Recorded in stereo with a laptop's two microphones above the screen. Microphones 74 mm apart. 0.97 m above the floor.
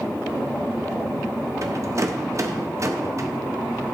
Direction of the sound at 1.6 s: 40° right (ahead or behind).